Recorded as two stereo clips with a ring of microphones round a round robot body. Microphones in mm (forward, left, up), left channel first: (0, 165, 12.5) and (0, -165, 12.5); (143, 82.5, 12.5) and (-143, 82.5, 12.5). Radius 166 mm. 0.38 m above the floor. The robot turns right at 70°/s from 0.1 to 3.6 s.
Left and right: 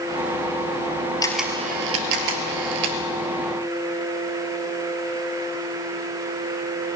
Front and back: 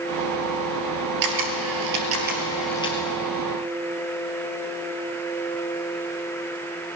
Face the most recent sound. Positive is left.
turn(degrees=-25)